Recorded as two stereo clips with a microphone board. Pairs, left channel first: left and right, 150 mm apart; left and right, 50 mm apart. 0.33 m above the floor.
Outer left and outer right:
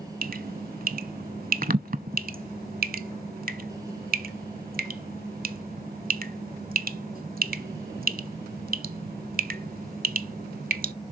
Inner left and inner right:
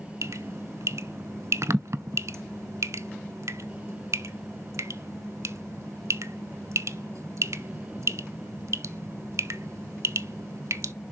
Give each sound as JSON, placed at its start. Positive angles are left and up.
{"t": 0.2, "sound": "dripping", "side_deg": -75, "distance_m": 0.5}